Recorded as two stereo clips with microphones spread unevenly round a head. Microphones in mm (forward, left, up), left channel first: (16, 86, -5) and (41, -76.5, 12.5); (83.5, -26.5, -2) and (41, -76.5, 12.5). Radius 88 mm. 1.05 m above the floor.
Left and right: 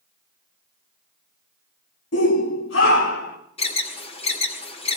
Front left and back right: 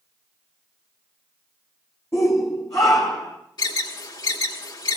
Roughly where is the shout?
Behind left.